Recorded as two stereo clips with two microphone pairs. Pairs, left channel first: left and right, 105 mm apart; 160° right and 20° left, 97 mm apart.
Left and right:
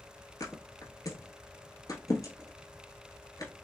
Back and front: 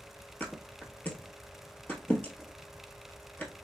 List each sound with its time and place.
0.4 s a thud: 130° left, 1.0 m